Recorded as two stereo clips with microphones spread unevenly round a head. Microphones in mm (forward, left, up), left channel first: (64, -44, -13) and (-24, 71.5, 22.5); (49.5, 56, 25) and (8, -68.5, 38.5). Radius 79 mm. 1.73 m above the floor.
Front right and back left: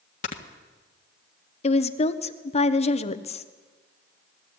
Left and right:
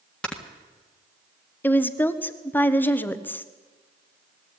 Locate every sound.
0.2 s snoring: 15° right, 1.7 m
1.6 s a woman speaking: 5° right, 1.2 m